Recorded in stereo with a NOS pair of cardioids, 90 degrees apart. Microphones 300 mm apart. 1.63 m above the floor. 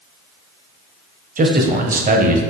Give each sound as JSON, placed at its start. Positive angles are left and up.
{"t": 1.4, "sound": "a man speaking", "azimuth_deg": -30, "distance_m": 0.7}